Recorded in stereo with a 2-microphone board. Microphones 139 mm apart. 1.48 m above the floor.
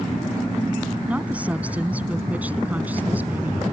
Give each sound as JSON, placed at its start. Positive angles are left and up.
{"t": 1.1, "sound": "a woman speaking", "side_deg": -10}